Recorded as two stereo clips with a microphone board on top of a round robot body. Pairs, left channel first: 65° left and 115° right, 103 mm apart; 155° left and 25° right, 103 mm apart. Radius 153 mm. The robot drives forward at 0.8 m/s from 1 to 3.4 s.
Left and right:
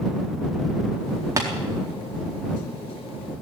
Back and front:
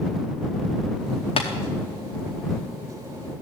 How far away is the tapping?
About 0.7 m.